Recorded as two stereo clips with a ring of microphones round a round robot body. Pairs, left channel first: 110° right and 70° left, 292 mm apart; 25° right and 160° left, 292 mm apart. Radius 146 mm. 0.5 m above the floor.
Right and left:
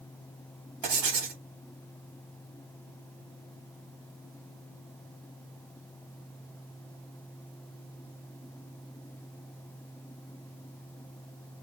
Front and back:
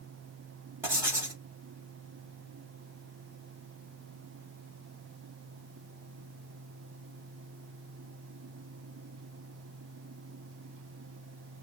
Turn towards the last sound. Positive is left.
turn(degrees=75)